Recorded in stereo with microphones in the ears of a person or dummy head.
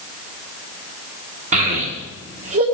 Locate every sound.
1.5 s a child speaking: 45° right (ahead or behind), 1.5 m